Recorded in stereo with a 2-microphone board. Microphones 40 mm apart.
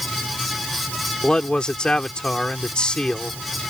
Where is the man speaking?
20° left (ahead or behind).